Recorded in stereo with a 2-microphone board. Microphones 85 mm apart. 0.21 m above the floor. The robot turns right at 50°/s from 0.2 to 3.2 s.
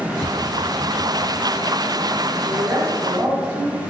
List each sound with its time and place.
0.2 s tapping: 45° left (ahead or behind), 0.7 m; by 1.3 s 5° left (ahead or behind), 0.7 m
2.4 s a woman speaking: 80° right, 1.4 m; by 3.8 s 40° right, 1.4 m